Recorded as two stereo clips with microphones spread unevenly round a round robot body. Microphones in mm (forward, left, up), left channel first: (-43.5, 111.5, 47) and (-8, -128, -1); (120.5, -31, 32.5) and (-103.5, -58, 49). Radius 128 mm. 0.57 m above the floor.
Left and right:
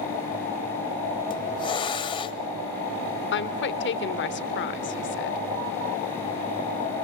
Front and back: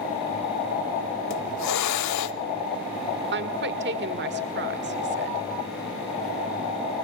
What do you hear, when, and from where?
1.3 s a hiss: 25° left, 0.9 m
3.3 s a woman speaking: 145° left, 2.0 m